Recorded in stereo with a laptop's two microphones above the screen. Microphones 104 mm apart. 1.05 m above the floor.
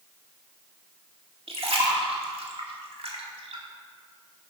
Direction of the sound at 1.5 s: 70° right (ahead or behind).